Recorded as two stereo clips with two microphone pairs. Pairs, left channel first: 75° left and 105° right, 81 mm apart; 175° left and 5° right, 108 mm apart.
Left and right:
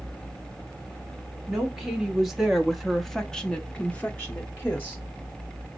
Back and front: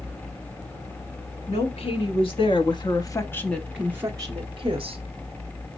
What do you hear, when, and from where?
1.5 s a woman speaking: 175° left, 1.3 m; by 5.0 s 10° left, 0.9 m